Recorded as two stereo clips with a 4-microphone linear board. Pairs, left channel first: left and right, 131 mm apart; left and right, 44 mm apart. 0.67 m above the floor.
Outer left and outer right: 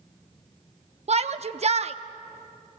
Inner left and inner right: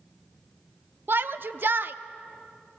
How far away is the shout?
About 0.8 m.